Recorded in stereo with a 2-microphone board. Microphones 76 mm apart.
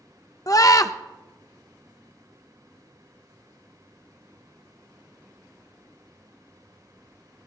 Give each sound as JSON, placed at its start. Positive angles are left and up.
{"t": 0.5, "sound": "a scream", "side_deg": 50, "distance_m": 0.5}